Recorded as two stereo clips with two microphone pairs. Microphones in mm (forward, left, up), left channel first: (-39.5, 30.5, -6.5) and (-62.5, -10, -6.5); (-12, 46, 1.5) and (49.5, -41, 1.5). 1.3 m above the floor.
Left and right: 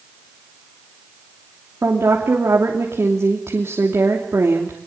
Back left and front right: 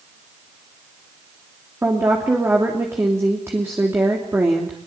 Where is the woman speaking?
120° right, 3 m.